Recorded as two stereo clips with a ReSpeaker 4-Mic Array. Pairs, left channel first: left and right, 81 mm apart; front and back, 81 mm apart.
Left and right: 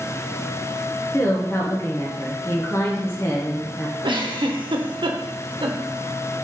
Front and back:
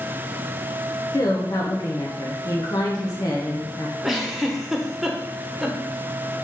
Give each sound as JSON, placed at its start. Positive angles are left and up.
{"t": 1.1, "sound": "a woman speaking", "azimuth_deg": 40, "distance_m": 1.0}
{"t": 4.0, "sound": "a giggle", "azimuth_deg": -95, "distance_m": 1.1}